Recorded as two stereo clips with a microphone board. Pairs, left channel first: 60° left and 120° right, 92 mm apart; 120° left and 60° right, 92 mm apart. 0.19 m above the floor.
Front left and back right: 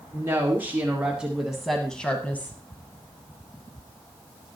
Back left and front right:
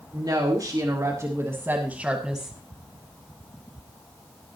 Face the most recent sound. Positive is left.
turn(degrees=30)